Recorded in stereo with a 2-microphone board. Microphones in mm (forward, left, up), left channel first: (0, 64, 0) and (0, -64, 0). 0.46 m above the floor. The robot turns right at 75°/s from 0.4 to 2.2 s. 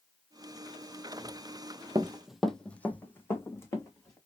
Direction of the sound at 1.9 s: 30° right (ahead or behind).